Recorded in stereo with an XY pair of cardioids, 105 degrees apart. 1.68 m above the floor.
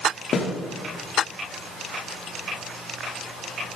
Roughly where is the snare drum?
Ahead left.